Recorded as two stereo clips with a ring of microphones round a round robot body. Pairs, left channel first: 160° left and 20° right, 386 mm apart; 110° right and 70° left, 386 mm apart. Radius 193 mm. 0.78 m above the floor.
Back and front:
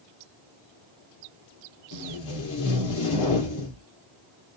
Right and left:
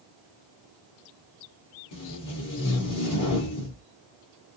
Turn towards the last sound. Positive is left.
turn(degrees=-160)